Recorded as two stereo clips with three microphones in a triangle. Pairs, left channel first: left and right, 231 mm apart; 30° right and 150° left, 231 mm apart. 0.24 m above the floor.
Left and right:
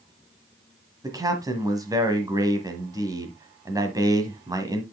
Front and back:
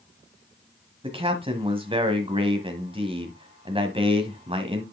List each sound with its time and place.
1.0 s a man speaking: 155° right, 1.3 m